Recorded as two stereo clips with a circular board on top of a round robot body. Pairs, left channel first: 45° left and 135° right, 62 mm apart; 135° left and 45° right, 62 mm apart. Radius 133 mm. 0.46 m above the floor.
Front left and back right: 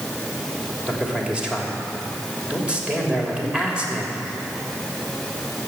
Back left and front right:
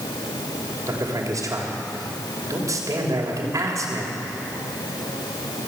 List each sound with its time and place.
0.9 s a man speaking: 60° right, 3 m